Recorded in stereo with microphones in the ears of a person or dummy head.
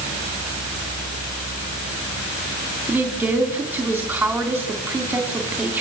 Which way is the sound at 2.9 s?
5° right (ahead or behind).